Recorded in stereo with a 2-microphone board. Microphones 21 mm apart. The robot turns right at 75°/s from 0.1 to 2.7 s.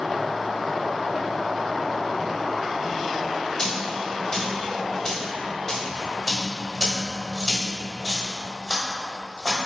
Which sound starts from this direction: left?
A dropped coin, at 3.6 s.